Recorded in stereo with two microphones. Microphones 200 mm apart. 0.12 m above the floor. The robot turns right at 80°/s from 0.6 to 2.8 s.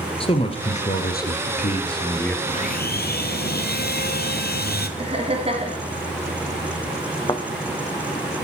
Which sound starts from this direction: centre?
A thud, at 7.3 s.